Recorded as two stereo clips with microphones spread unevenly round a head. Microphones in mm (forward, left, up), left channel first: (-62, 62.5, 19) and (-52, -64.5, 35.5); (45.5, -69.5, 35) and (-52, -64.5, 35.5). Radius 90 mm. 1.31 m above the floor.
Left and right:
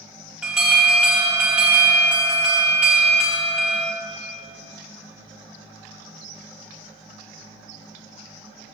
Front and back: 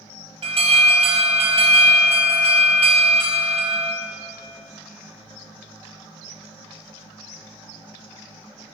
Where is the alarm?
170° right, 4 m.